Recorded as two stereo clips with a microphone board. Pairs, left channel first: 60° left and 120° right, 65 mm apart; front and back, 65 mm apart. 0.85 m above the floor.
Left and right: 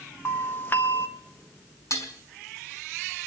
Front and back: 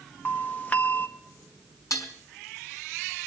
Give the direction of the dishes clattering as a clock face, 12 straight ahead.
11 o'clock.